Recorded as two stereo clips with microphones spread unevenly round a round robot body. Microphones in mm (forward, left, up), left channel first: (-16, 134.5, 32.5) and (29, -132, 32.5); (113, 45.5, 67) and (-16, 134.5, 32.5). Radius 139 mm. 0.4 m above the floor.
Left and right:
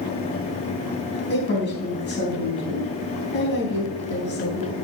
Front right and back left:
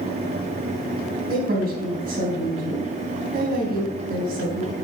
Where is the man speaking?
150° left, 3.5 m.